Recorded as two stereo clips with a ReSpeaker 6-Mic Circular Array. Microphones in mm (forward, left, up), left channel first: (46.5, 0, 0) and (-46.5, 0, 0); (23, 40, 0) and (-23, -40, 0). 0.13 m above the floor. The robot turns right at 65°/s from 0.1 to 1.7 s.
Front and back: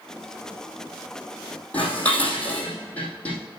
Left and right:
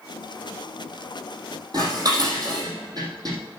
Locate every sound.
1.7 s dishes clattering: 75° right, 3.5 m